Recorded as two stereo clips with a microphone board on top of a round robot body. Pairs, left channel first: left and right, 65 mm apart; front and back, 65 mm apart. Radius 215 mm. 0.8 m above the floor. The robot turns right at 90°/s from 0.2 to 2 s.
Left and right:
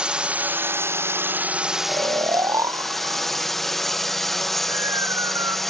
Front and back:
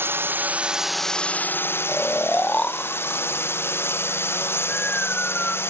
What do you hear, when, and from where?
0.0 s a drone: 155° right; by 5.7 s 5° left
1.9 s snoring: 80° right; by 5.6 s 70° right